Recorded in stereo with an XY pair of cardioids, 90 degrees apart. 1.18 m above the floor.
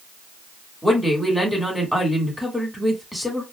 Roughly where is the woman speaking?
Ahead.